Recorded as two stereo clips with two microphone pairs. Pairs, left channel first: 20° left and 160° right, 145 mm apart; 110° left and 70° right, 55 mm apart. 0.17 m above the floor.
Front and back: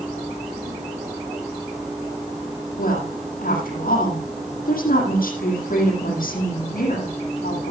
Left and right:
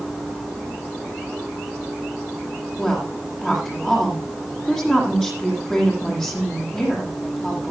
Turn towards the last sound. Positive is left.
turn(degrees=25)